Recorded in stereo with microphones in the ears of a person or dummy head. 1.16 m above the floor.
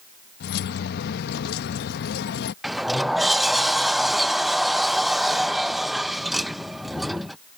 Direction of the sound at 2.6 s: Centre (ahead or behind).